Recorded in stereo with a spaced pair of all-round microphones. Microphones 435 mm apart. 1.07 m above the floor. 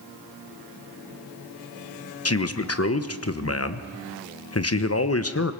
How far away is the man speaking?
About 1.0 m.